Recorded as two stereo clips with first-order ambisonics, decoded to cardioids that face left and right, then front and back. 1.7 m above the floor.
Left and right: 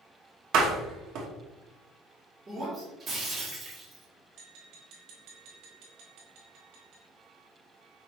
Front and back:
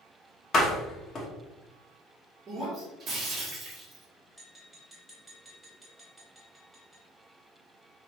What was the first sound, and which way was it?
A door slam, 60° right.